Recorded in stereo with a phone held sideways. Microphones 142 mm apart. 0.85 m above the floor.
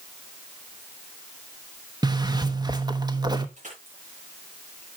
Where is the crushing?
55° right (ahead or behind), 7 m.